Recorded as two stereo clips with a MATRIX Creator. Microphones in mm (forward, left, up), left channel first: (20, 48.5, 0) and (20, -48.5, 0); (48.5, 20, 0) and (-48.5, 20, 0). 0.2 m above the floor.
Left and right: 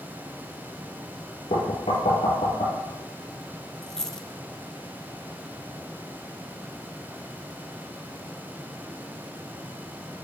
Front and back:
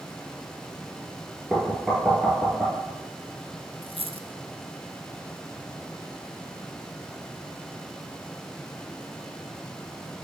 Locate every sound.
1.5 s knocking: 90° left, 3 m
3.8 s a dropped coin: 175° left, 0.6 m